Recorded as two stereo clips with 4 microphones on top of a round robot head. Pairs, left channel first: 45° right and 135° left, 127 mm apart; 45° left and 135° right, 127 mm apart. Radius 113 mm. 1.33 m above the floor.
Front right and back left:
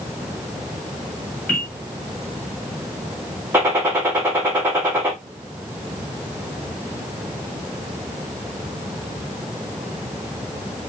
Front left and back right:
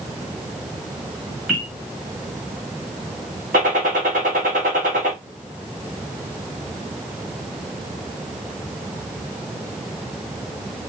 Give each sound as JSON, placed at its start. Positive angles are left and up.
{"t": 1.5, "sound": "a bell", "azimuth_deg": -60, "distance_m": 2.0}
{"t": 3.5, "sound": "a gunshot", "azimuth_deg": -145, "distance_m": 1.2}